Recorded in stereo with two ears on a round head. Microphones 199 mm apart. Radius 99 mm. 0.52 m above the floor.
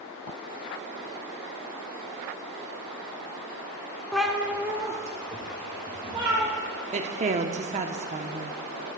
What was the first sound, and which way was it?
A cat meowing, 5° left (ahead or behind).